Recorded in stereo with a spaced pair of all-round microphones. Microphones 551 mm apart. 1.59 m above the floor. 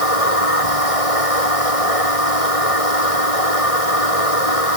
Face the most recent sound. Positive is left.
turn(degrees=80)